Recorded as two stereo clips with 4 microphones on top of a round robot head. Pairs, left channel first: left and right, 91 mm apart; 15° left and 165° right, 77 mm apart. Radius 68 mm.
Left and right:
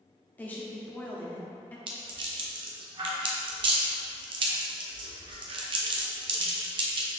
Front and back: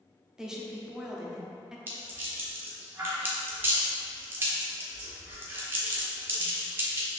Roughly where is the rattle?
Right.